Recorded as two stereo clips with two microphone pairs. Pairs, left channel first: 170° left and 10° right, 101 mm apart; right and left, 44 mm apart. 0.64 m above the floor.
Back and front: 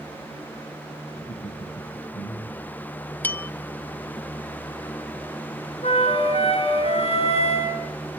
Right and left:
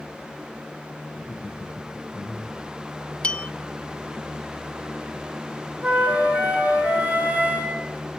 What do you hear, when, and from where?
1.1 s laughter: 175° right, 6.5 m; by 2.8 s 165° left, 5 m
3.2 s a bell: 130° right, 0.9 m
5.8 s a flute: 150° left, 4.5 m